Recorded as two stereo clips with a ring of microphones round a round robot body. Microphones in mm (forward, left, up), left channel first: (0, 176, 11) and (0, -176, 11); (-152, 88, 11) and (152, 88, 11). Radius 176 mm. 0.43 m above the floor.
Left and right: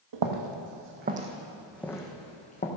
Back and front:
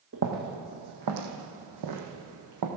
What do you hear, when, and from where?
0.1 s footsteps: 60° right, 1.5 m; by 2.7 s 25° left, 2 m